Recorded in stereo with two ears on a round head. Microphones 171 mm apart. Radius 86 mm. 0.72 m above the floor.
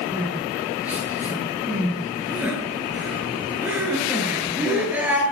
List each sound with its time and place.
0.1 s crying: 10° right (ahead or behind), 9 m